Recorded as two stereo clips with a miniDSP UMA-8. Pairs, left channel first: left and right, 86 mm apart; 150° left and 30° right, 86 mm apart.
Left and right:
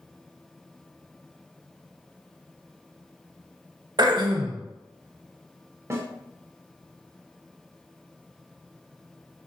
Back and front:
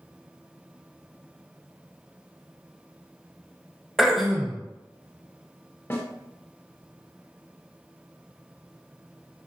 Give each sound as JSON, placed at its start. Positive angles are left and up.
{"t": 4.0, "sound": "throat clearing", "azimuth_deg": -120, "distance_m": 0.5}
{"t": 5.9, "sound": "a snare drum", "azimuth_deg": -145, "distance_m": 0.6}